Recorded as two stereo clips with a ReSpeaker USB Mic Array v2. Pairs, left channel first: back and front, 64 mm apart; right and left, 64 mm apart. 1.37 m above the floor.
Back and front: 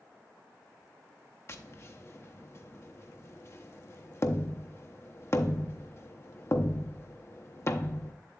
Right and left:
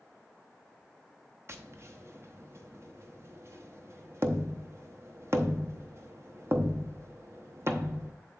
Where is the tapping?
140° left, 0.7 m.